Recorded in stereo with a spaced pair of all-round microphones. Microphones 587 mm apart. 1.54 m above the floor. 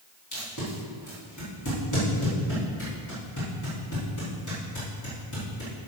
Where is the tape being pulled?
30° left (ahead or behind), 3.5 m.